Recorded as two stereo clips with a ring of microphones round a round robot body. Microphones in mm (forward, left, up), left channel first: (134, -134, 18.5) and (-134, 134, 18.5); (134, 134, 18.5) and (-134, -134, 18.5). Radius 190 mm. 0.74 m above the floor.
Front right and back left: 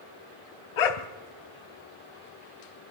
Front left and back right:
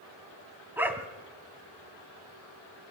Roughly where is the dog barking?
Ahead right.